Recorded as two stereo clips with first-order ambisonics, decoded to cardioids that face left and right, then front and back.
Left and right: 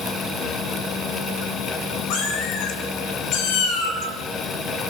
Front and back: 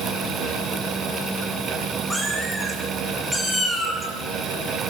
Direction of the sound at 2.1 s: 80° left.